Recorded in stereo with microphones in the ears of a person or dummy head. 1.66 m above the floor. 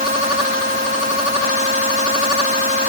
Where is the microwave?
I don't hear a microwave.